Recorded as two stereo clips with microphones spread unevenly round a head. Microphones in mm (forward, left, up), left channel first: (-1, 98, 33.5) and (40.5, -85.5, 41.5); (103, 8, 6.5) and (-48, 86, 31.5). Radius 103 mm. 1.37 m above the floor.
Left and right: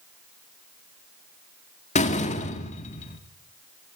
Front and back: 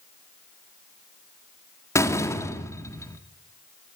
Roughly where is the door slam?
Ahead left.